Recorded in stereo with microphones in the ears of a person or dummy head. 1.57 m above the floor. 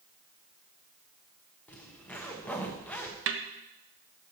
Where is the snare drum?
60° right (ahead or behind), 1.1 m.